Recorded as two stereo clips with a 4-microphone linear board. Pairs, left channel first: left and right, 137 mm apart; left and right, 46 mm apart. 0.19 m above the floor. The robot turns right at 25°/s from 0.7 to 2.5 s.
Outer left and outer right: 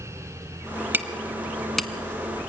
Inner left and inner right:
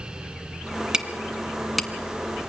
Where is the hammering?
15° right (ahead or behind), 1.6 m; by 1.9 s 5° left (ahead or behind), 1.6 m.